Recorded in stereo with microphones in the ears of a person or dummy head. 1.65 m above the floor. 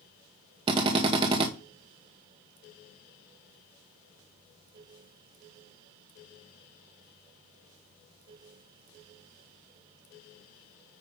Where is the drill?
25° right (ahead or behind), 1.0 m.